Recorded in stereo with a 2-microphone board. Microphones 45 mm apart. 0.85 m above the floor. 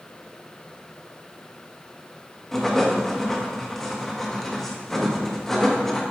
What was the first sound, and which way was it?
Writing, 10° left (ahead or behind).